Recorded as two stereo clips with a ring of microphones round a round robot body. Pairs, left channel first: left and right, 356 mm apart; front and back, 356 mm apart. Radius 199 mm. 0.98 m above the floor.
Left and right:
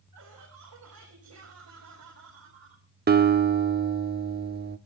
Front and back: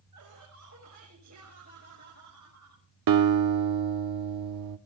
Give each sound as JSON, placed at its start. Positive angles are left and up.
{"t": 0.1, "sound": "laughter", "azimuth_deg": -140, "distance_m": 6.5}
{"t": 3.1, "sound": "a guitar", "azimuth_deg": -155, "distance_m": 0.9}